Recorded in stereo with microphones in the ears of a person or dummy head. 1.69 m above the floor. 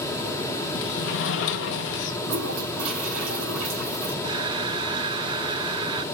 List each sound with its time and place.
0.8 s a sliding door: 60° left (ahead or behind), 1.3 m
2.2 s a toilet flushing: 75° right (ahead or behind), 5 m
4.2 s breathing: 25° right (ahead or behind), 0.8 m